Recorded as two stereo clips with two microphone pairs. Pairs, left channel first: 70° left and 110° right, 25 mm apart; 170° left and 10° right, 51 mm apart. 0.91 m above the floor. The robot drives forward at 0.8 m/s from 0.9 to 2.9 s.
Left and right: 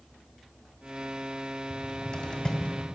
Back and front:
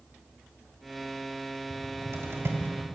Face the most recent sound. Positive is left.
turn(degrees=30)